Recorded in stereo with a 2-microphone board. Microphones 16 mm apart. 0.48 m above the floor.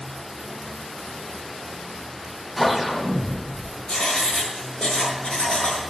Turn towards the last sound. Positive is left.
turn(degrees=55)  # may be behind; listen again after turning